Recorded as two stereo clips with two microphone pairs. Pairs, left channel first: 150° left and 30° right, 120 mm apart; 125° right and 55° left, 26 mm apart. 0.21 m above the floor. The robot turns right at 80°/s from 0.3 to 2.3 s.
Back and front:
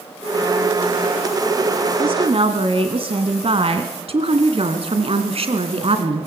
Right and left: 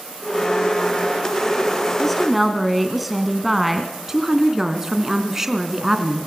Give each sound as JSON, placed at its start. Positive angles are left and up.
{"t": 2.0, "sound": "a woman speaking", "azimuth_deg": -55, "distance_m": 1.5}
{"t": 4.1, "sound": "a woman speaking", "azimuth_deg": -15, "distance_m": 2.0}